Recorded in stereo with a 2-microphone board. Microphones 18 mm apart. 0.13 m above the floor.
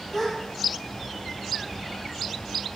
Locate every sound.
0.1 s a gasp: 30° left (ahead or behind), 2 m